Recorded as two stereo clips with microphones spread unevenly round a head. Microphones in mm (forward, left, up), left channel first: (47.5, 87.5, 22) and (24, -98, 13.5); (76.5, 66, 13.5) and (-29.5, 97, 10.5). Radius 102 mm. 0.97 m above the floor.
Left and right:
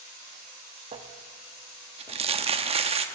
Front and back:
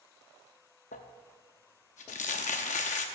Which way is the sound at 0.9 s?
40° right.